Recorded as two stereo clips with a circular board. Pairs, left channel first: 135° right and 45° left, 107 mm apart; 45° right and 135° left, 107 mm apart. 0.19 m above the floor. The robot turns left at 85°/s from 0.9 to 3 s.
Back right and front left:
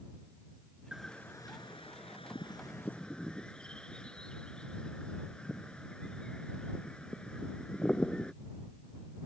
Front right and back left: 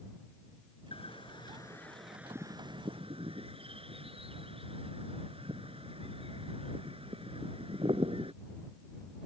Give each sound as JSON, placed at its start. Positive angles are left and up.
{"t": 0.9, "sound": "a bird", "azimuth_deg": -40}